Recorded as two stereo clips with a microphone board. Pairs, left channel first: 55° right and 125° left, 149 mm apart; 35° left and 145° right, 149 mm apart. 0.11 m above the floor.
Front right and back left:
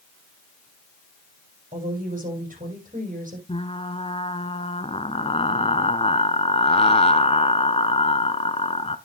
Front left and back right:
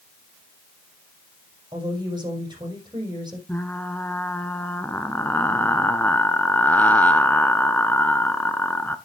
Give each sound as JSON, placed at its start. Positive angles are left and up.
{"t": 1.7, "sound": "a woman speaking", "azimuth_deg": 150, "distance_m": 6.0}
{"t": 3.5, "sound": "frying", "azimuth_deg": -40, "distance_m": 0.9}